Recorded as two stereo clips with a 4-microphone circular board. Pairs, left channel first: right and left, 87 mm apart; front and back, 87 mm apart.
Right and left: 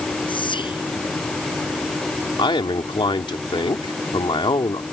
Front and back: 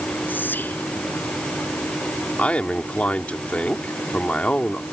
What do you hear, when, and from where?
0.3 s whispering: 70° right
2.4 s a man speaking: 75° right